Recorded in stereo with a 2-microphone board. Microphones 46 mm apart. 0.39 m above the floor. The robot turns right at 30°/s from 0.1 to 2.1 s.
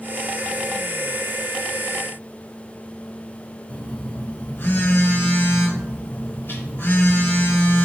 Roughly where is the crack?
No crack in this recording.